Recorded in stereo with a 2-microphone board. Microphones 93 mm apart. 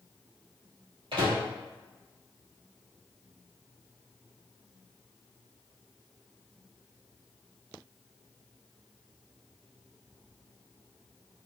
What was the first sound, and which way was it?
A microwave, 65° right (ahead or behind).